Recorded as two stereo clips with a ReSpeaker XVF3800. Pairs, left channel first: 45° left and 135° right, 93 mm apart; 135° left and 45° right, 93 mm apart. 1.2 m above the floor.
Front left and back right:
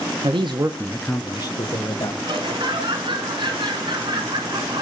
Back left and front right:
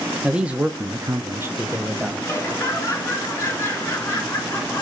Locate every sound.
0.2 s a man speaking: 125° right, 1.2 m; by 2.1 s 30° left, 1.8 m
2.2 s laughter: 160° right, 4.5 m